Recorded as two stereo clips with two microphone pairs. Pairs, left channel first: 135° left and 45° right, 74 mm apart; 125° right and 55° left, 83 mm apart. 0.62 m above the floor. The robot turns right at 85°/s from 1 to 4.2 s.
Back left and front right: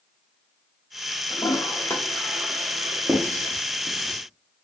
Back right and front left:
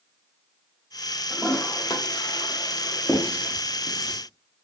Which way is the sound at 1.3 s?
150° left.